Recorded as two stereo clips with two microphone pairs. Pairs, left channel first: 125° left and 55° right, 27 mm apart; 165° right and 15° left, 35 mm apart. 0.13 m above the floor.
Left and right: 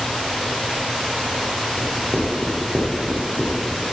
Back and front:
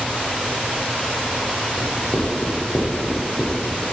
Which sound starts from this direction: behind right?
Writing, at 1.8 s.